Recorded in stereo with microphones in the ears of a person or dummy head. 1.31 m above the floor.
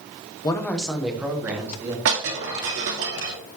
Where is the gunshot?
I don't hear a gunshot.